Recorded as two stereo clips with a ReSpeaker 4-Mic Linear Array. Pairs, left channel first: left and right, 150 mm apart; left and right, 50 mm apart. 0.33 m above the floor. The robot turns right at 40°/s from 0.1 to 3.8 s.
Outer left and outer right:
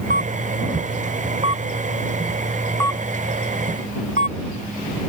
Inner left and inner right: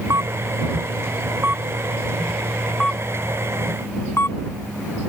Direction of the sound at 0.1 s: 85° right.